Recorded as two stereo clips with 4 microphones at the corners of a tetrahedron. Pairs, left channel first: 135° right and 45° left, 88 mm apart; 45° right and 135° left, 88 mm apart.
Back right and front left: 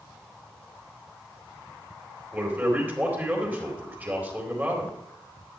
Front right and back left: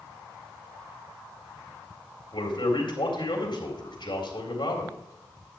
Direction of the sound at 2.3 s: 25° right.